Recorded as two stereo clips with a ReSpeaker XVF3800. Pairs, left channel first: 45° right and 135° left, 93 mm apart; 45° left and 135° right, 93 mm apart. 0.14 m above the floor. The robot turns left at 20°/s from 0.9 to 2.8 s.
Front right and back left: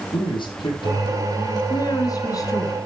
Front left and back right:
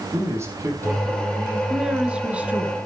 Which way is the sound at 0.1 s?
75° right.